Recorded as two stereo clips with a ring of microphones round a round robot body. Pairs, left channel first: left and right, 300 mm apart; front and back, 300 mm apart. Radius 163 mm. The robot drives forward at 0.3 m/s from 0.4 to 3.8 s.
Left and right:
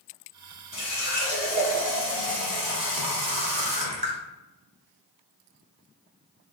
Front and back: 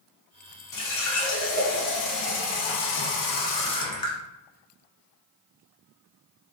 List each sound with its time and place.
0.7 s a running tap: 10° right, 1.2 m; by 4.2 s 55° right, 0.5 m